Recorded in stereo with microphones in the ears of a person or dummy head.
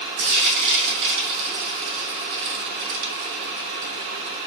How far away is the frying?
About 2.5 m.